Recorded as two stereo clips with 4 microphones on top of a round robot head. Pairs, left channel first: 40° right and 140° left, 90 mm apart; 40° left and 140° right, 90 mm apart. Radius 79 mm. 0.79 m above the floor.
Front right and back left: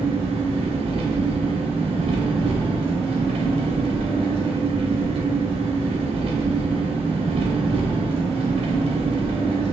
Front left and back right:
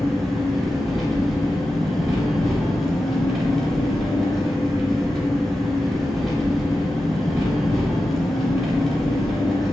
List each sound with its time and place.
0.0 s an engine running: 130° left, 1.2 m